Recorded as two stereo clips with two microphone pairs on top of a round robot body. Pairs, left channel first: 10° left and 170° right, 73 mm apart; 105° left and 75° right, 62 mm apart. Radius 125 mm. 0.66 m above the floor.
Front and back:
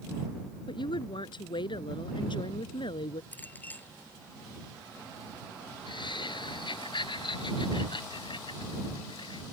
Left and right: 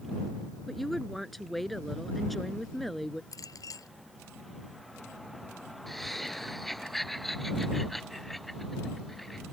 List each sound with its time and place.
0.7 s a woman speaking: 20° left
3.3 s a clink: 75° left
5.9 s laughter: 20° left